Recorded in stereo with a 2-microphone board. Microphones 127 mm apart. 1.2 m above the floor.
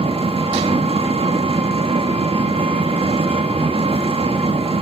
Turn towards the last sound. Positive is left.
turn(degrees=-50)  # may be behind; listen again after turning